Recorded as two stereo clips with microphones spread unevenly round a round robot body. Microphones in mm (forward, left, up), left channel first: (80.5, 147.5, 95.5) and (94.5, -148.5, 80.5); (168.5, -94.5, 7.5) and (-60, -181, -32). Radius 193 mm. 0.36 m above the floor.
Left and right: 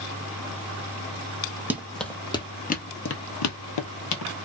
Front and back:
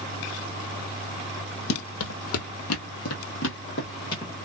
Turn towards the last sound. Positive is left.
turn(degrees=90)